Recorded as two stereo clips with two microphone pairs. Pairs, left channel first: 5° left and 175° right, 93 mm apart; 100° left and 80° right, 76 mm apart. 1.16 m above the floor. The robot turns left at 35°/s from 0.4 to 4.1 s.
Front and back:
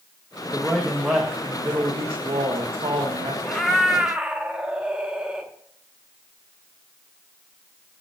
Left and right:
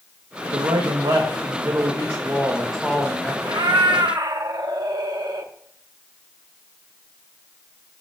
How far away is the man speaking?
About 1.5 m.